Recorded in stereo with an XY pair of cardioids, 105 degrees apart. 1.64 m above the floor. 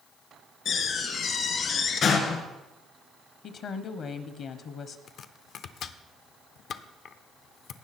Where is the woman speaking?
60° left, 1.1 m.